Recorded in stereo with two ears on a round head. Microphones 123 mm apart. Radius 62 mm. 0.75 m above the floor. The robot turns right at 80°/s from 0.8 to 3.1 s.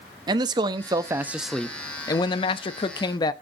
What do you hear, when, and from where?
0.3 s a man speaking: 55° right, 0.5 m; by 3.3 s 130° left, 0.5 m